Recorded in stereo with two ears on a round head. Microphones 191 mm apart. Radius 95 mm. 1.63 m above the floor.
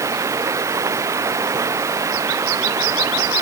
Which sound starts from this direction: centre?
Running water, at 0.0 s.